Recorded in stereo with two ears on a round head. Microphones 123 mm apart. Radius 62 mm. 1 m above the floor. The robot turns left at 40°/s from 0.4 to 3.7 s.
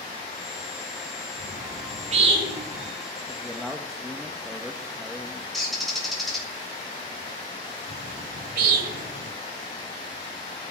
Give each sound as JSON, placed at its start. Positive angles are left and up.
{"t": 1.4, "sound": "a bird", "side_deg": -85, "distance_m": 5.0}
{"t": 3.3, "sound": "a man speaking", "side_deg": 15, "distance_m": 1.3}
{"t": 5.5, "sound": "a bird", "side_deg": 0, "distance_m": 4.0}
{"t": 7.9, "sound": "a bird", "side_deg": -70, "distance_m": 1.8}